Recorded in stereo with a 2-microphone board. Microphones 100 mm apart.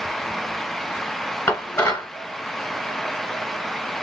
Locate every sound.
1.5 s dishes clattering: 30° left (ahead or behind), 2 m